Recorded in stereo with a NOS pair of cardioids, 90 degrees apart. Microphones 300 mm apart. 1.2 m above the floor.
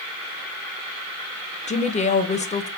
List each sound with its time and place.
1.7 s a woman speaking: 25° left, 0.5 m